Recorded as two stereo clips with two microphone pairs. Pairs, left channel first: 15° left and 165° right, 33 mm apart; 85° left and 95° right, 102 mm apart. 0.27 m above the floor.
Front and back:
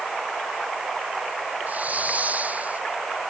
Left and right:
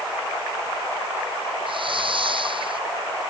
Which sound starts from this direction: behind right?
A hiss, at 1.7 s.